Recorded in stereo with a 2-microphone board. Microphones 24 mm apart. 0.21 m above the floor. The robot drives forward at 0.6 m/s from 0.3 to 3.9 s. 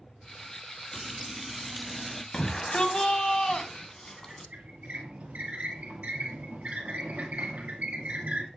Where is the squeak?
65° right (ahead or behind), 2 m.